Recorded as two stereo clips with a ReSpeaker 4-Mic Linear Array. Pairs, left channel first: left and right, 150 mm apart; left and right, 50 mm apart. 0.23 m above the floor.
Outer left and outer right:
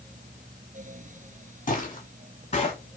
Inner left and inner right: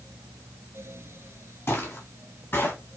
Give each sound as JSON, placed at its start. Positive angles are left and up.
{"t": 1.7, "sound": "footsteps", "side_deg": 55, "distance_m": 3.0}